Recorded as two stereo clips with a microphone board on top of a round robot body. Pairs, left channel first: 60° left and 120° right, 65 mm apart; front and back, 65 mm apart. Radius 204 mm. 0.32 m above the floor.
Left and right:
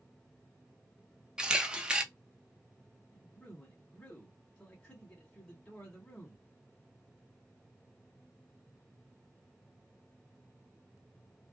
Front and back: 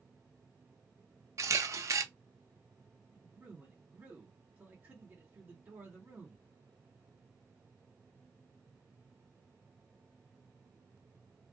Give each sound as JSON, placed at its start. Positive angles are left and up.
{"t": 1.4, "sound": "a camera shutter", "azimuth_deg": 165, "distance_m": 0.8}
{"t": 3.1, "sound": "a man speaking", "azimuth_deg": 130, "distance_m": 1.7}